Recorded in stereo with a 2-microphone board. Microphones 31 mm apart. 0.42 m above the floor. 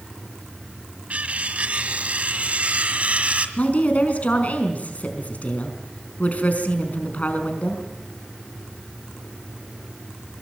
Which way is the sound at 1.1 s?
45° right (ahead or behind).